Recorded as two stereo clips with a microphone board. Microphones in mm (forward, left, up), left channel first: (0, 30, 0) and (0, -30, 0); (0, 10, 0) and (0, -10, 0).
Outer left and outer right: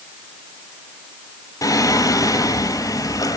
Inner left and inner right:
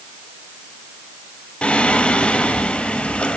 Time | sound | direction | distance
1.6 | singing | 85° left | 0.9 m